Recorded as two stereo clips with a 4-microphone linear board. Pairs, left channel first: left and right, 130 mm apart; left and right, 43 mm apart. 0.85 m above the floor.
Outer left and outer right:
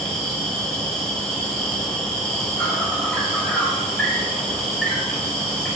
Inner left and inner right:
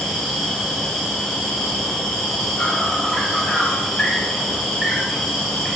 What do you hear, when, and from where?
0.0 s an insect: 5° left (ahead or behind), 5.5 m